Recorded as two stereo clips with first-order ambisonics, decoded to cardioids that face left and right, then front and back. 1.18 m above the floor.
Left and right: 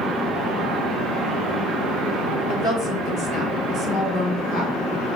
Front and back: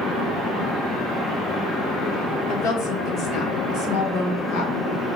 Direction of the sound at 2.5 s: 35° left.